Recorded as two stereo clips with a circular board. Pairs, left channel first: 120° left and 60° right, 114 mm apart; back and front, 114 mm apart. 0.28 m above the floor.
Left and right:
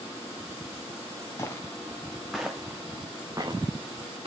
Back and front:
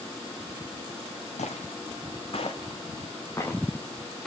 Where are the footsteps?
175° right, 1.8 m; by 4.3 s 95° right, 1.9 m.